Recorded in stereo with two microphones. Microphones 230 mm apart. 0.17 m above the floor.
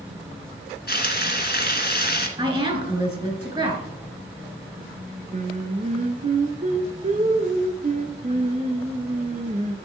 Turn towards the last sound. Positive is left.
turn(degrees=-35)  # may be behind; listen again after turning